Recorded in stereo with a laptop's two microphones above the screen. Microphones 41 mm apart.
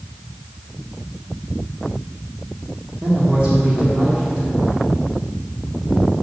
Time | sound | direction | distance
3.0 | a woman speaking | 45° right (ahead or behind) | 2.0 m